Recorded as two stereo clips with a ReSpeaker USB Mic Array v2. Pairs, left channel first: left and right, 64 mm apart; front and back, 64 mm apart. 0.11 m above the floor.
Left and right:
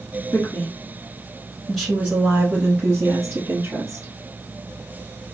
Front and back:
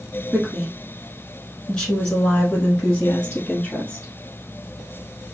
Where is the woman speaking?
95° left, 1.4 m; by 4.1 s 65° right, 1.8 m.